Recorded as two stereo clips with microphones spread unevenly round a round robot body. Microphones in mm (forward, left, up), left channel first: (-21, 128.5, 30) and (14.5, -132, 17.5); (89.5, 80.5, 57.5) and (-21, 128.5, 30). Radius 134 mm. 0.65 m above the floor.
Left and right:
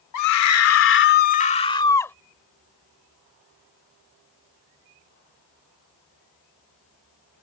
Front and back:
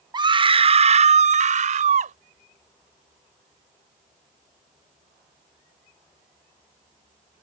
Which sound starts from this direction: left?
A scream, at 0.1 s.